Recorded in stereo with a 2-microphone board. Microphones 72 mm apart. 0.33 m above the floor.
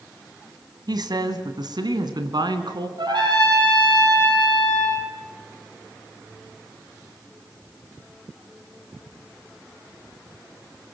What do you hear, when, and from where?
0.9 s a woman speaking: 65° right (ahead or behind), 2 m; by 2.9 s 70° right (ahead or behind), 3 m
3.0 s a trumpet: 75° right (ahead or behind), 7 m